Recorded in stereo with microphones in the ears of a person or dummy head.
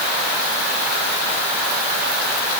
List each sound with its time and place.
Only background noise.